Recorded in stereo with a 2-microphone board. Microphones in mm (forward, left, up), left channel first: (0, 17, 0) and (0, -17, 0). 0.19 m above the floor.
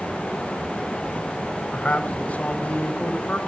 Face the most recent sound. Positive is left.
turn(degrees=45)  # may be behind; listen again after turning